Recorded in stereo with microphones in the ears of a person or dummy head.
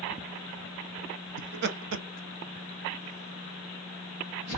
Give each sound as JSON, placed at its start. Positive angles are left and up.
{"t": 1.4, "sound": "laughter", "side_deg": -40, "distance_m": 0.6}